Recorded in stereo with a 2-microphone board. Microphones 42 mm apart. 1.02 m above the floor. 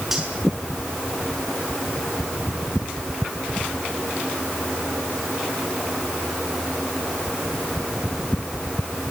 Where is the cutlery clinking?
10° right (ahead or behind), 7 m.